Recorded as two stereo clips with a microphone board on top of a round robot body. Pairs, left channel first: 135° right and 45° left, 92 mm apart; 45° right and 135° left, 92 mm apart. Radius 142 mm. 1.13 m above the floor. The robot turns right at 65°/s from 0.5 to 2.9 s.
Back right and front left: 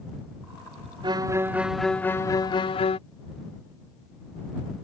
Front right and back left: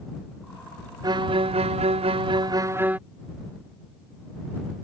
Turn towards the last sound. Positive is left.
turn(degrees=-150)